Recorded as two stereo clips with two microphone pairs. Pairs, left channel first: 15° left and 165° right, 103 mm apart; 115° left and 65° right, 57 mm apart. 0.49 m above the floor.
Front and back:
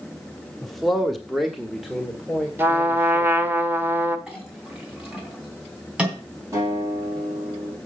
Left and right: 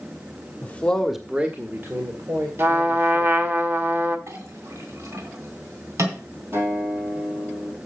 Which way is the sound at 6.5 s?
100° right.